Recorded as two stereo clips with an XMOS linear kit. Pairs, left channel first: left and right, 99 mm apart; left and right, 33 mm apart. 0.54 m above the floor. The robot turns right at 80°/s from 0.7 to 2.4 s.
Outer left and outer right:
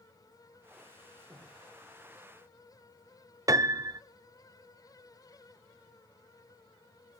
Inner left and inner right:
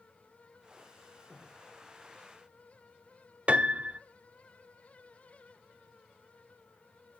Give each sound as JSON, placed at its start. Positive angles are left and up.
{"t": 1.3, "sound": "breathing", "side_deg": -40, "distance_m": 9.5}
{"t": 3.5, "sound": "a piano", "side_deg": -35, "distance_m": 0.8}